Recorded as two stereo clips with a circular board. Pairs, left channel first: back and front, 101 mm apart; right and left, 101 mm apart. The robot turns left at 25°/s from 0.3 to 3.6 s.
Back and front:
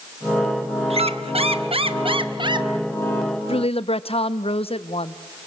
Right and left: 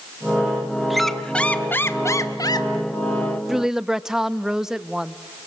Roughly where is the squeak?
Ahead.